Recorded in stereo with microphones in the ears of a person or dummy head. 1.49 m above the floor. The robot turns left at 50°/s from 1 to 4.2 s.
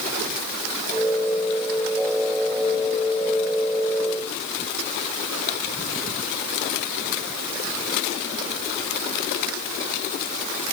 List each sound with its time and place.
Only background noise.